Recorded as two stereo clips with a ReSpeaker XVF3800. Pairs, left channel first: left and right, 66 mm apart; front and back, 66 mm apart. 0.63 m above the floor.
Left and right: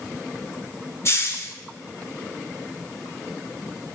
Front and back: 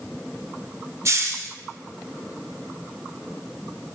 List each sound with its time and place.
1.1 s a hiss: 135° left, 0.6 m